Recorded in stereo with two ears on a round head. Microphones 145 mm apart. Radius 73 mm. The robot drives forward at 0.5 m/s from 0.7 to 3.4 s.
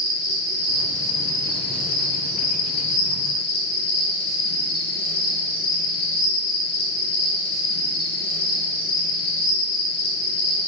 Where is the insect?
25° left (ahead or behind), 1.2 m; by 10.7 s 35° left (ahead or behind), 0.8 m.